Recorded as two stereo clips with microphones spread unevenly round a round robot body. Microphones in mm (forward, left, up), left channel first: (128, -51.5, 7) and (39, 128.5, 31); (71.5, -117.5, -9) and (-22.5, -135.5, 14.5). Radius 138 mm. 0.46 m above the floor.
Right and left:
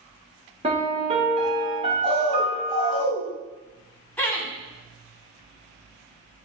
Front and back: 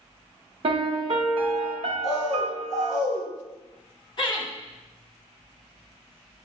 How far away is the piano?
About 0.7 m.